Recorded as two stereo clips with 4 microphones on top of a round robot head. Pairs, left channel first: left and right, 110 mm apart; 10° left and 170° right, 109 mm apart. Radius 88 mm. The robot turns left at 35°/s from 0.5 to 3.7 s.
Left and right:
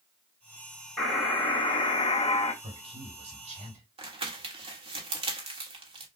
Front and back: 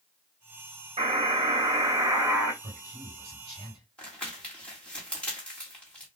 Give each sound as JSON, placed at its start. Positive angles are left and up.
{"t": 1.0, "sound": "a buzzer", "azimuth_deg": 165, "distance_m": 2.5}
{"t": 2.6, "sound": "a man speaking", "azimuth_deg": -55, "distance_m": 3.5}
{"t": 4.0, "sound": "crumpling", "azimuth_deg": -70, "distance_m": 1.5}